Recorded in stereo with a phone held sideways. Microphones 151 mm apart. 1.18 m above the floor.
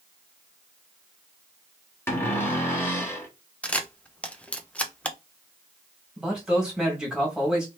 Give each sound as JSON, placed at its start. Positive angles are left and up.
{"t": 2.1, "sound": "a cupboard door", "side_deg": 15, "distance_m": 1.5}
{"t": 3.6, "sound": "a camera shutter", "side_deg": 10, "distance_m": 0.6}
{"t": 6.2, "sound": "a man speaking", "side_deg": -5, "distance_m": 1.9}